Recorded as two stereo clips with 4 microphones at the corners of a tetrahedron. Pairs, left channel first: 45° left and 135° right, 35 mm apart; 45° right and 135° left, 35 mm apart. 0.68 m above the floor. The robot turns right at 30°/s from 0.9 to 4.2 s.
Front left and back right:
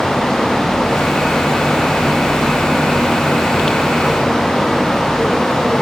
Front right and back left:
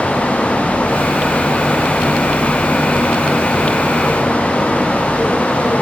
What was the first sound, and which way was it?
Only background noise.